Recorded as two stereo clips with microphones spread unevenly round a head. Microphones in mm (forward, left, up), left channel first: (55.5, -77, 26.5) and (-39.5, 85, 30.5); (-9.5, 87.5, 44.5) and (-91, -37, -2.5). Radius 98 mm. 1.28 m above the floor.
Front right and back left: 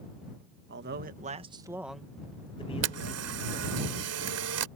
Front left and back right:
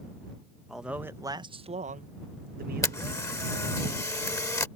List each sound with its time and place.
0.7 s a man speaking: 150° left; by 3.7 s 105° right
2.8 s a camera shutter: 125° left